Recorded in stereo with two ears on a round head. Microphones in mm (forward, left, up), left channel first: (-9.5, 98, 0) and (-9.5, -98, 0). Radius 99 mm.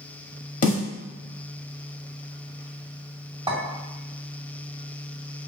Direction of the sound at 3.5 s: 20° right (ahead or behind).